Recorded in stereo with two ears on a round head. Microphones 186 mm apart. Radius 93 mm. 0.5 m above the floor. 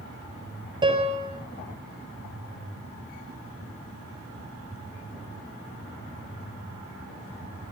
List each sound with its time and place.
0.8 s a piano: 20° right (ahead or behind), 6 m